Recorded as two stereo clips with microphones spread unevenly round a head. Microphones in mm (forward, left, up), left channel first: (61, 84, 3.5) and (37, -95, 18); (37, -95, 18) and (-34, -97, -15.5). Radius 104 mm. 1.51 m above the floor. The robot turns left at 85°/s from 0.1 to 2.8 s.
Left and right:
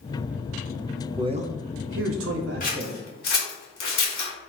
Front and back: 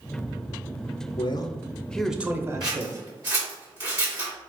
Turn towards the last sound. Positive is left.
turn(degrees=110)